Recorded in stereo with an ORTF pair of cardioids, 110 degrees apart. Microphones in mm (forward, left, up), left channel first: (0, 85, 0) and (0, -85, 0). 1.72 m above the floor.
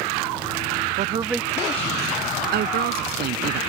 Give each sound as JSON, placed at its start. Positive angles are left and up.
{"t": 1.0, "sound": "a man speaking", "azimuth_deg": -50}
{"t": 2.5, "sound": "a woman speaking", "azimuth_deg": -65}